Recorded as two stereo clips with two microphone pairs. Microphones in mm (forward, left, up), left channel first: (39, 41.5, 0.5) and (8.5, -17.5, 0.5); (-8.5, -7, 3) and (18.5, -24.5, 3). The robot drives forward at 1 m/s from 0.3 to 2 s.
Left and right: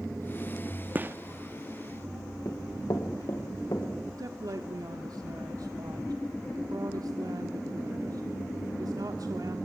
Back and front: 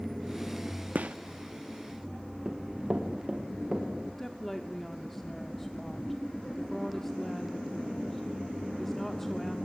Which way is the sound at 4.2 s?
130° right.